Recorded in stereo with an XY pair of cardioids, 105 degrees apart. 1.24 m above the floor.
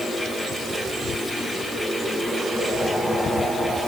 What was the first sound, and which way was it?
A fan, straight ahead.